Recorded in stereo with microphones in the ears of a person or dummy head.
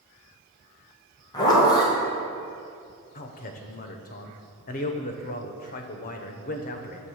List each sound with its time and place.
1.3 s a zipper: 20° left (ahead or behind), 1.5 m
3.1 s a man speaking: 40° left (ahead or behind), 0.7 m